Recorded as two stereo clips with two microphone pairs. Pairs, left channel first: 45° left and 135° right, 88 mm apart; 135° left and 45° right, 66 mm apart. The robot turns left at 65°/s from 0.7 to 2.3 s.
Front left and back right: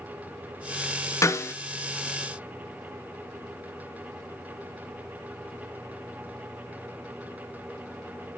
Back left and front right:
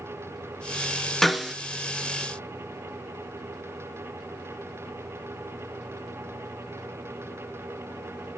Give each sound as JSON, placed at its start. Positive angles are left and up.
{"t": 1.2, "sound": "a snare drum", "azimuth_deg": 45, "distance_m": 0.5}